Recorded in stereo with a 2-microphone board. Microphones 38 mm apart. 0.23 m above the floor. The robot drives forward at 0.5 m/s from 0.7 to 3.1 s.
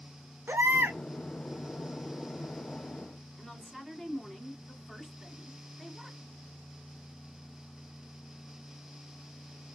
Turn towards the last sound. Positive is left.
turn(degrees=-5)  # may be behind; listen again after turning